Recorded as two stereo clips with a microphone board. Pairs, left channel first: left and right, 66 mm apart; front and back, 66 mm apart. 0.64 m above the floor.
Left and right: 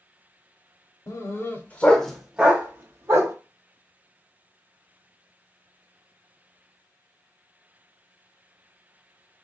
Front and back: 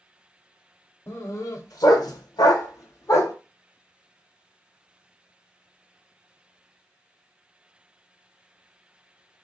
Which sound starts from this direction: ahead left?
A dog barking, at 1.1 s.